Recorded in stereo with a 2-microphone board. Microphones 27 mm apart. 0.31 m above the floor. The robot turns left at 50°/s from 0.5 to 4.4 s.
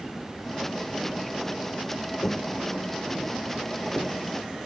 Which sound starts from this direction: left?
Footsteps, at 2.2 s.